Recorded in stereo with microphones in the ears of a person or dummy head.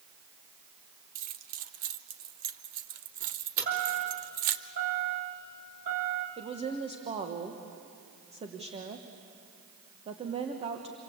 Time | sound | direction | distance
1.1 | keys jangling | 50° right (ahead or behind) | 0.8 m
3.6 | a chime | 45° right (ahead or behind) | 3.5 m
6.4 | a woman speaking | 25° right (ahead or behind) | 1.2 m